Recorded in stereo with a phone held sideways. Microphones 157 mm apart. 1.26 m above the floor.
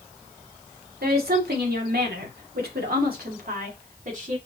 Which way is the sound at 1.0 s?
75° right (ahead or behind).